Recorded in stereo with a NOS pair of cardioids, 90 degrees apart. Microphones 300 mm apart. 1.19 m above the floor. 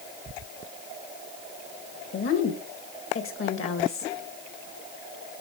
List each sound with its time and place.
2.1 s a woman speaking: 50° left, 2.0 m